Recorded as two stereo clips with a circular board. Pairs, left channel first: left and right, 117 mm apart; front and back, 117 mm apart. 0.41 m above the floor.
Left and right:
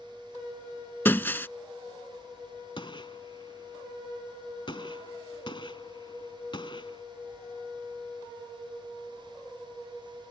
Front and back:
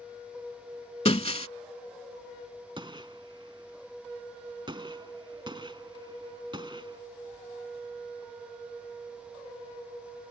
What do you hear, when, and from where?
1.1 s breaking glass: 20° left
2.8 s a gunshot: 135° left